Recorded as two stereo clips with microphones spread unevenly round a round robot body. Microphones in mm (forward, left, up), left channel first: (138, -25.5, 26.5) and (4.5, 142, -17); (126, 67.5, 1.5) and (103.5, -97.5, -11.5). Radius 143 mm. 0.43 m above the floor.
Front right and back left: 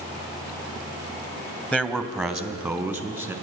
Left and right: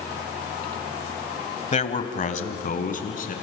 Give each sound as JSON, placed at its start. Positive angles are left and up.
{"t": 1.7, "sound": "a man speaking", "azimuth_deg": 35, "distance_m": 2.0}